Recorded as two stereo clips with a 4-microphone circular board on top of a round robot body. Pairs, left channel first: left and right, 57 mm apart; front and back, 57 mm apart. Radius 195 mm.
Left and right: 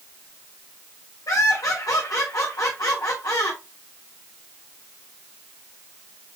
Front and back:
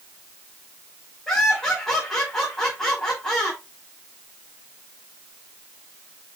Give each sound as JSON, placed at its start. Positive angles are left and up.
{"t": 1.3, "sound": "laughter", "azimuth_deg": 85, "distance_m": 5.0}